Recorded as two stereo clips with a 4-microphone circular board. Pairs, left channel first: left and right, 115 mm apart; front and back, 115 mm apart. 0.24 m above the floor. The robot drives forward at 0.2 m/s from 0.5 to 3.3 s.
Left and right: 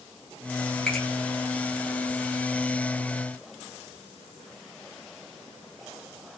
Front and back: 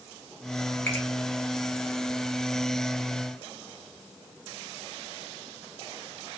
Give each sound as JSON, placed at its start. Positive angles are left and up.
{"t": 0.9, "sound": "a finger snap", "azimuth_deg": 25, "distance_m": 1.0}